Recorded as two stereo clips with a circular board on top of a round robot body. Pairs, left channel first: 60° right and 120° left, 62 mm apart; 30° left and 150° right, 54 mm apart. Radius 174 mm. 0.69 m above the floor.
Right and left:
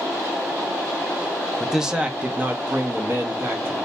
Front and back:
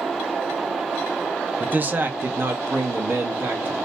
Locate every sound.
1.6 s a man speaking: 150° right, 0.7 m; by 3.8 s 170° left, 1.5 m